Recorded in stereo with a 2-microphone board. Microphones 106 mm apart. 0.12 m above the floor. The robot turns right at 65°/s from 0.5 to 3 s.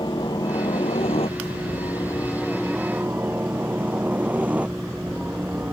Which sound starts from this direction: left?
A helicopter, at 0.0 s.